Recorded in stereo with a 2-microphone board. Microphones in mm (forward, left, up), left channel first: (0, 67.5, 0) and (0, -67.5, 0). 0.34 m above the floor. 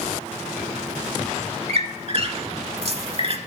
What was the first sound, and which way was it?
A squeak, 50° right (ahead or behind).